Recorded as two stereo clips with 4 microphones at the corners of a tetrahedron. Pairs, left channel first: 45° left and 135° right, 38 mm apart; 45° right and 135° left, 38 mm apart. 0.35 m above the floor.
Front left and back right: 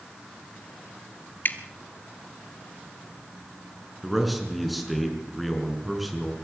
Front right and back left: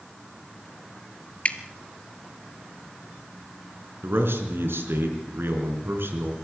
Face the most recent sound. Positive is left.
turn(degrees=135)